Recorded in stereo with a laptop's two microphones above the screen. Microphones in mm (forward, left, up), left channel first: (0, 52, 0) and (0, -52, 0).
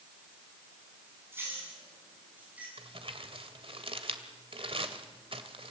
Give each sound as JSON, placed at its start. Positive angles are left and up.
{"t": 1.3, "sound": "keys jangling", "side_deg": -25, "distance_m": 7.5}
{"t": 2.8, "sound": "crumpling", "side_deg": -70, "distance_m": 1.9}